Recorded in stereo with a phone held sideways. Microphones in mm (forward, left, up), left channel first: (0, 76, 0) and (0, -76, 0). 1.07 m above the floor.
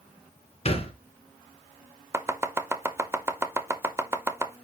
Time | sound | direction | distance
0.7 | a thud | 45° left (ahead or behind) | 1.5 m
2.1 | chopping | 15° right (ahead or behind) | 0.5 m